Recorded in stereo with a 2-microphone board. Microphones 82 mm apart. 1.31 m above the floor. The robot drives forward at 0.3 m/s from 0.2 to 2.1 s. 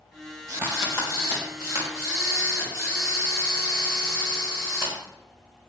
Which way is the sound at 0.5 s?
35° right (ahead or behind).